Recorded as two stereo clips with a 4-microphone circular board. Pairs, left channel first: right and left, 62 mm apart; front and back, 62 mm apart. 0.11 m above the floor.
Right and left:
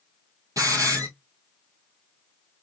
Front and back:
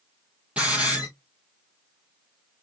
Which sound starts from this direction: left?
A hiss, at 0.6 s.